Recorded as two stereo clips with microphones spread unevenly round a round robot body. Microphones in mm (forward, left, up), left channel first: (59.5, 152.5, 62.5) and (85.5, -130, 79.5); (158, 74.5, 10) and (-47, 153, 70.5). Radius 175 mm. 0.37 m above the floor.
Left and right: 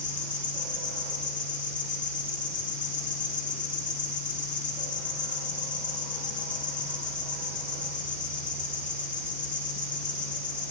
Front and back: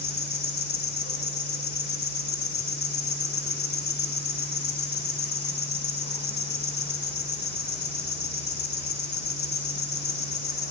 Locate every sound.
0.0 s an insect: 30° left, 1.0 m